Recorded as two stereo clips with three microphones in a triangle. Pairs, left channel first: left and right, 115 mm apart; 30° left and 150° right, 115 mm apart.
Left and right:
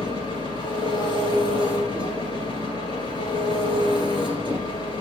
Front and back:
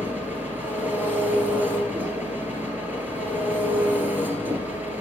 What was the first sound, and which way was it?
An engine running, 135° left.